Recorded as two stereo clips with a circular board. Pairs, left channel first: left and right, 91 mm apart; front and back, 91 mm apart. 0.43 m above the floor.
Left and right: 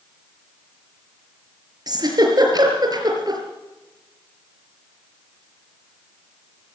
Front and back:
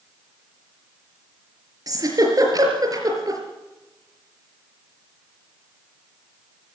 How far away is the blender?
I don't hear a blender.